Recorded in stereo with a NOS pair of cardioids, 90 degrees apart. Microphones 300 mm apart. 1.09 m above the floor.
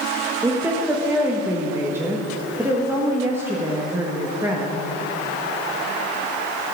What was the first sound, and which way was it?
A woman speaking, 10° right.